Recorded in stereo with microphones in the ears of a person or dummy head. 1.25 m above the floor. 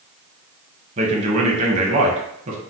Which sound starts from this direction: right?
A man speaking, at 1.0 s.